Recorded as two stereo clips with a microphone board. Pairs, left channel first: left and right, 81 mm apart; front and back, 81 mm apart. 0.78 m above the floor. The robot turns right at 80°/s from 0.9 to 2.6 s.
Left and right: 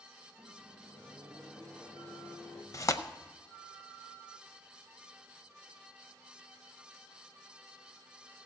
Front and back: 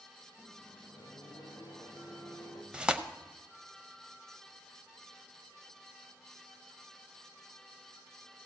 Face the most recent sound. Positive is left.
turn(degrees=110)